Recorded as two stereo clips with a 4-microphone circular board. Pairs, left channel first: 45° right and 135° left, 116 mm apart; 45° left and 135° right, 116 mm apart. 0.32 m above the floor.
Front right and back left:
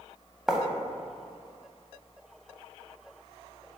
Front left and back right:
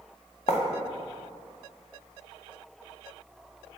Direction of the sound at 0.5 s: 50° left.